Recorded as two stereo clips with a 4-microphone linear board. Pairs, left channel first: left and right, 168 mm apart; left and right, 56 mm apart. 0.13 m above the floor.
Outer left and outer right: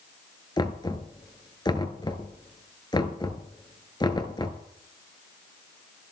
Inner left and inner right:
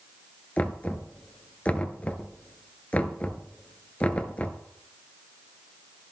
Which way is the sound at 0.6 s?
25° left (ahead or behind).